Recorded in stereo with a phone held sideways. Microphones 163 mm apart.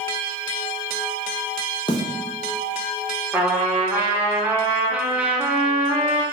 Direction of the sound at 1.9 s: 30° left (ahead or behind).